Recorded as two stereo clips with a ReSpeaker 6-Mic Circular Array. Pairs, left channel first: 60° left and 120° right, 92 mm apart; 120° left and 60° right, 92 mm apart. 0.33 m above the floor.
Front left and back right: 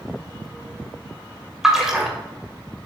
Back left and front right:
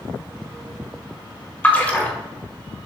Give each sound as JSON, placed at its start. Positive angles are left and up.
{"t": 1.6, "sound": "a splash", "azimuth_deg": 165, "distance_m": 1.4}